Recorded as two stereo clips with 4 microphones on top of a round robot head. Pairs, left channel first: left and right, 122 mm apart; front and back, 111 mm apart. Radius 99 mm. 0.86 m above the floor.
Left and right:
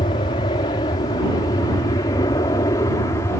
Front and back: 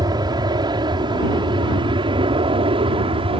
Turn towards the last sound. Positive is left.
turn(degrees=155)